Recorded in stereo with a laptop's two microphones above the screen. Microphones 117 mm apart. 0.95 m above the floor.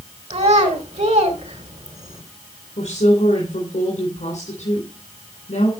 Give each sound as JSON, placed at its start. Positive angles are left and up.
{"t": 0.3, "sound": "a child speaking", "side_deg": -70, "distance_m": 2.5}
{"t": 2.8, "sound": "a woman speaking", "side_deg": 80, "distance_m": 3.5}